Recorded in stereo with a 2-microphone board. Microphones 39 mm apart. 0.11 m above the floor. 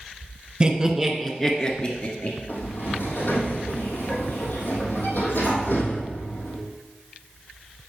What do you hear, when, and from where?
0.6 s laughter: 25° right (ahead or behind), 1.3 m; by 2.4 s 40° left (ahead or behind), 1.9 m
2.5 s a sliding door: 60° left (ahead or behind), 3 m